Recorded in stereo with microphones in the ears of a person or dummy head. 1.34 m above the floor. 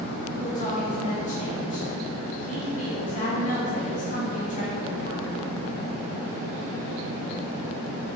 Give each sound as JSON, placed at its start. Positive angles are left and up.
{"t": 0.4, "sound": "a woman speaking", "side_deg": 35, "distance_m": 1.8}